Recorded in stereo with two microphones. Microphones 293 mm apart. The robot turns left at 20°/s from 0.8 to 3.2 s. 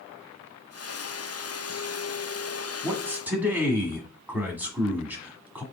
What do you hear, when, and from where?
2.8 s a man speaking: 10° right (ahead or behind), 1.2 m; by 5.6 s 5° right (ahead or behind), 1.2 m